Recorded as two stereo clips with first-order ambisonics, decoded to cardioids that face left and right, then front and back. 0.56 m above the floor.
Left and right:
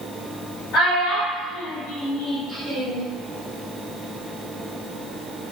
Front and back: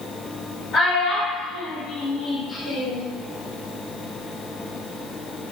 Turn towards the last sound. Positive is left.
turn(degrees=-115)